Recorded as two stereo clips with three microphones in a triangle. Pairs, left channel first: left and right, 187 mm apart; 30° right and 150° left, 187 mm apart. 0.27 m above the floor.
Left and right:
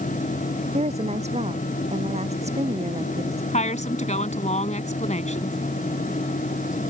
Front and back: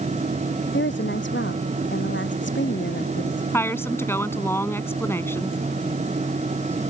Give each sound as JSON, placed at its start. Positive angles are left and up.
{"t": 0.7, "sound": "a woman speaking", "azimuth_deg": -35}
{"t": 3.5, "sound": "a woman speaking", "azimuth_deg": 45}